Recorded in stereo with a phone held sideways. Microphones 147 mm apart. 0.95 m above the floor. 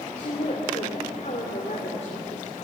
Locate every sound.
0.1 s a woman speaking: 55° left (ahead or behind), 3 m